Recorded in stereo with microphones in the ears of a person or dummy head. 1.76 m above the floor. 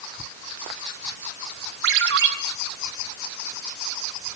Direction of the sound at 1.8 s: 75° right (ahead or behind).